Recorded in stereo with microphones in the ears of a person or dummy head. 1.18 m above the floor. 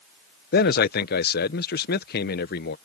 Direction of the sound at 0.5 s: 45° left (ahead or behind).